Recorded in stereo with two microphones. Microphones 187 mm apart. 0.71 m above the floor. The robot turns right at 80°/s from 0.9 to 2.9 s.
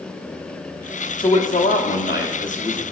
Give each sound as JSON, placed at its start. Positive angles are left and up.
{"t": 1.2, "sound": "a man speaking", "azimuth_deg": 25, "distance_m": 1.1}